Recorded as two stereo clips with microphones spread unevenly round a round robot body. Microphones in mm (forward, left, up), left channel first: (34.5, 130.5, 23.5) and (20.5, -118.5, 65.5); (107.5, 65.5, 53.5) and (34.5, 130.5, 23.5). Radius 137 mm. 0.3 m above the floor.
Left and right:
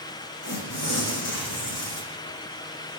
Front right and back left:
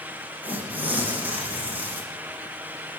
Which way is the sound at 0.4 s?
65° left.